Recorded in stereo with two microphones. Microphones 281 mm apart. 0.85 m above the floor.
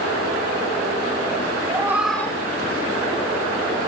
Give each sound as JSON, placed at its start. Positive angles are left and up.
{"t": 1.7, "sound": "a cat meowing", "side_deg": -15, "distance_m": 1.7}